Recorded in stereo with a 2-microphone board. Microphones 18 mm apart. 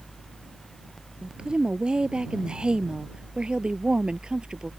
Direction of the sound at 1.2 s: 60° right (ahead or behind).